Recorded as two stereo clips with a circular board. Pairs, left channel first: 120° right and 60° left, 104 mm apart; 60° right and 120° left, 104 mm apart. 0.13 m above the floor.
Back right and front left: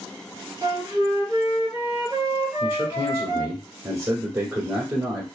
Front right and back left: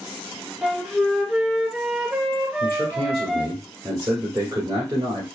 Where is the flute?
55° left, 1.2 m.